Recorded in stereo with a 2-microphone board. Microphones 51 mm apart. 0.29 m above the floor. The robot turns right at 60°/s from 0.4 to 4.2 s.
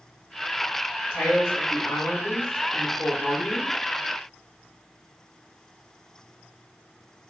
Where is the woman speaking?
45° left, 1.8 m; by 3.8 s 155° right, 1.8 m.